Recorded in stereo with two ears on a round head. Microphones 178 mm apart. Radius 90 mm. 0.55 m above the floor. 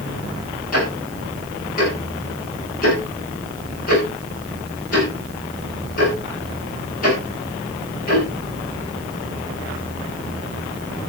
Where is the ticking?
45° left (ahead or behind), 9.5 m.